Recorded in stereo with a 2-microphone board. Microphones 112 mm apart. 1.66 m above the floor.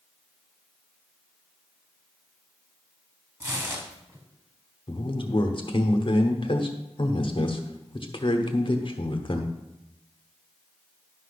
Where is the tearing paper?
25° right (ahead or behind), 1.8 m.